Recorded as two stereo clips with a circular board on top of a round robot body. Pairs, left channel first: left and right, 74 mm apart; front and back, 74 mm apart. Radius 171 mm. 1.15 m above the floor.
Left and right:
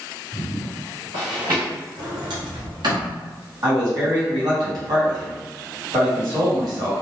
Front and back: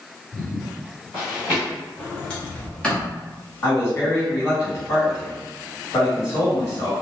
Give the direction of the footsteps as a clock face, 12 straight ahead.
3 o'clock.